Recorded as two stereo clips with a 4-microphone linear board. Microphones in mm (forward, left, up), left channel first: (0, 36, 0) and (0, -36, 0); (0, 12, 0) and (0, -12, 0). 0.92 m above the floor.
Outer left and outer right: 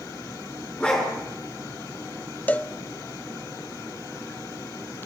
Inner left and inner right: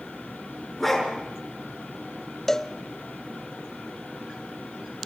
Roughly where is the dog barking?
Centre.